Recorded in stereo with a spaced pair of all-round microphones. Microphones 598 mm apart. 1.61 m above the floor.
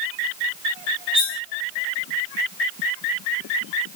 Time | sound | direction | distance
1.1 | cutlery clinking | 10° left (ahead or behind) | 5.5 m